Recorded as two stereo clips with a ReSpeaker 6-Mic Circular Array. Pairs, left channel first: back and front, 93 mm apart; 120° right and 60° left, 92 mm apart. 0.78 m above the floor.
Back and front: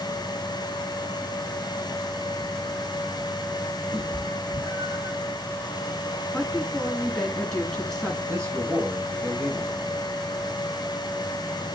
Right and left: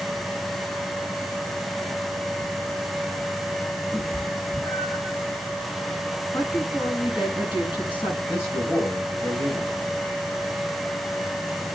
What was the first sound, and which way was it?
A cat meowing, 45° right.